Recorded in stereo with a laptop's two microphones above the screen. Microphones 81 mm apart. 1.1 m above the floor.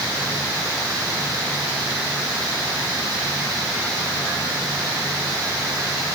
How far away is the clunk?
I don't hear a clunk.